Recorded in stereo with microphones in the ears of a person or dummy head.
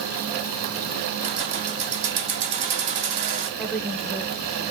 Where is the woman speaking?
Centre (ahead or behind), 1.0 m.